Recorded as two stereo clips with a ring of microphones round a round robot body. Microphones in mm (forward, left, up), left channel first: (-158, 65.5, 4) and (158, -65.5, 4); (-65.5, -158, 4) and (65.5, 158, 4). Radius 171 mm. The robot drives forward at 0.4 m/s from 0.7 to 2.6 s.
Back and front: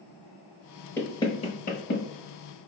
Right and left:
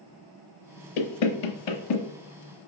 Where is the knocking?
120° right, 0.7 m; by 2.1 s 140° right, 1.0 m.